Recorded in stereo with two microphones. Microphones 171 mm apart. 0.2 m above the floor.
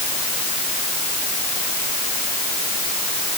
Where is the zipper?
I don't hear a zipper.